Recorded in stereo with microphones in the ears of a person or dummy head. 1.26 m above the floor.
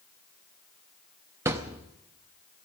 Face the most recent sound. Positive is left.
turn(degrees=-10)  # may be behind; listen again after turning